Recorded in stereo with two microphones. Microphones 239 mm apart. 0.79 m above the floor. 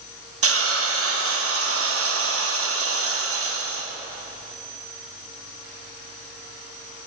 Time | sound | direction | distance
0.4 | a hiss | 70° right (ahead or behind) | 0.6 m